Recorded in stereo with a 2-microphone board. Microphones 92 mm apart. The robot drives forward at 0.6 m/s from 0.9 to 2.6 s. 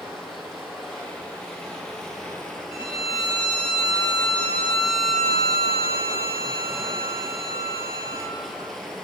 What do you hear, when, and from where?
0.0 s running water: centre (ahead or behind), 2.5 m; by 9.1 s 5° left (ahead or behind), 1.6 m
2.7 s a violin: 70° left (ahead or behind), 1.9 m